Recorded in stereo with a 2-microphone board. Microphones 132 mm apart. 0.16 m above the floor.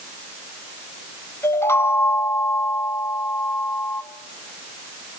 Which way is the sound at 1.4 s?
20° left (ahead or behind).